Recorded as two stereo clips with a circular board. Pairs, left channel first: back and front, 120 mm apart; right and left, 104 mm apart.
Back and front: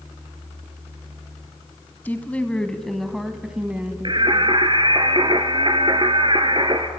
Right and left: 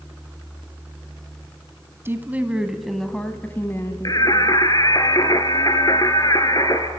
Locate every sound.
2.0 s a woman speaking: 125° left, 1.2 m; by 4.2 s 65° right, 1.3 m
4.0 s singing: 40° right, 1.3 m